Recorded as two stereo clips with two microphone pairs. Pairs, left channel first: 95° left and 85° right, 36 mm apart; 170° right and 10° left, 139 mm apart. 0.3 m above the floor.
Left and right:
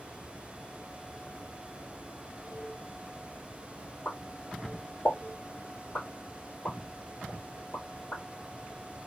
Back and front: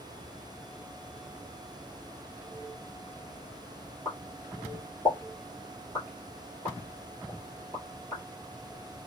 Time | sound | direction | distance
4.0 | a pop | 130° left | 3 m